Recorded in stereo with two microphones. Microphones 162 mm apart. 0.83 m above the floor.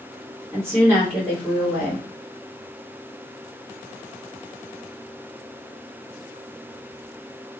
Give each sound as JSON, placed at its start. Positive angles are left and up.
{"t": 0.5, "sound": "a woman speaking", "side_deg": 0, "distance_m": 1.6}